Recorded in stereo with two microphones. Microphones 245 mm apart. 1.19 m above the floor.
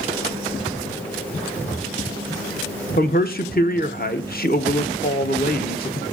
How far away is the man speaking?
About 0.9 m.